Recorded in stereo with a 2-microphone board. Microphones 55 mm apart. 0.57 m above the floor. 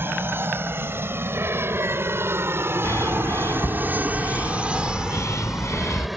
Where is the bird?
60° left (ahead or behind).